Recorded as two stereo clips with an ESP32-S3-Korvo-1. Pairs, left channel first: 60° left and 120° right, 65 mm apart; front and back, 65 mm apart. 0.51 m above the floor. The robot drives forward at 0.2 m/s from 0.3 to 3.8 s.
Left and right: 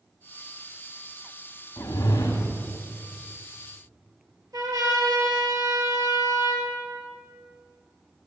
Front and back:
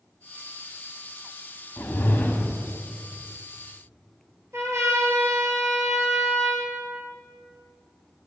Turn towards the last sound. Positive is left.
turn(degrees=-140)